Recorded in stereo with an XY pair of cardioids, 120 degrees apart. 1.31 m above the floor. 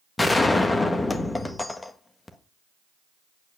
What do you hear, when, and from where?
0.2 s a gunshot: 15° left, 1.6 m